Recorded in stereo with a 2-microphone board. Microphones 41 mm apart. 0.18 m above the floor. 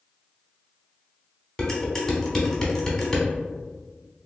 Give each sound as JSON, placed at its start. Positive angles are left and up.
{"t": 1.6, "sound": "dishes clattering", "side_deg": 15, "distance_m": 0.9}